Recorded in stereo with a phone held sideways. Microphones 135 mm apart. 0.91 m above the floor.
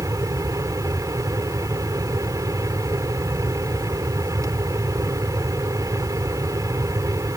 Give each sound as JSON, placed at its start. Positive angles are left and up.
{"t": 0.0, "sound": "a fan", "side_deg": -25}